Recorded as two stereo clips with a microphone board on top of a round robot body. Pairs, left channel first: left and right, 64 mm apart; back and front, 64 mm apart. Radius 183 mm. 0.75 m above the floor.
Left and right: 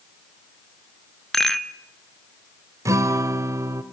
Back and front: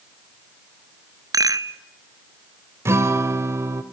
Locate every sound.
1.3 s a rattle: 5° left, 1.0 m
2.9 s a guitar: 50° right, 1.2 m